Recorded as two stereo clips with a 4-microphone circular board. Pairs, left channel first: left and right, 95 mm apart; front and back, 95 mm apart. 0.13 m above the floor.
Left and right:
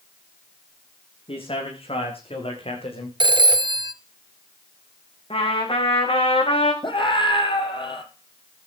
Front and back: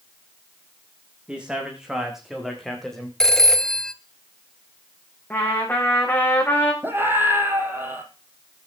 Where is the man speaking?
100° left, 9.5 m; by 3.1 s 85° left, 8.5 m.